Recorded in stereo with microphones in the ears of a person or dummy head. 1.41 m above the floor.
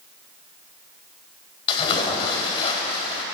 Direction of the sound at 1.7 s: 25° left (ahead or behind).